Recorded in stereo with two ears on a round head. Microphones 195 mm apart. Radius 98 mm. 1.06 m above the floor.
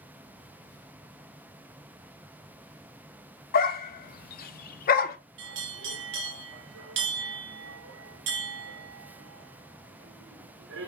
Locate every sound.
3.5 s a dog barking: 40° left (ahead or behind), 0.6 m
5.4 s a bell: 60° right (ahead or behind), 1.1 m